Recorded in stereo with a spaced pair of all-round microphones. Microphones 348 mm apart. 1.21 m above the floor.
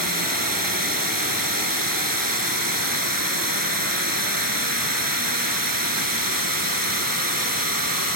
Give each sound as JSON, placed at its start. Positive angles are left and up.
{"t": 0.0, "sound": "running water", "side_deg": -70}